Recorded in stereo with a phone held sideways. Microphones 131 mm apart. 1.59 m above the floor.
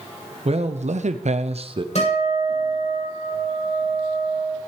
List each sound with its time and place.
0.5 s a man speaking: 50° right (ahead or behind), 0.9 m; by 1.9 s 40° right (ahead or behind), 0.8 m
1.9 s a guitar: 60° left (ahead or behind), 7.5 m